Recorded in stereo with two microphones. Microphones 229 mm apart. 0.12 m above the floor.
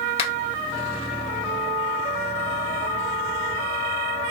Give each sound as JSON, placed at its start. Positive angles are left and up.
{"t": 0.2, "sound": "a finger snap", "side_deg": 25, "distance_m": 2.0}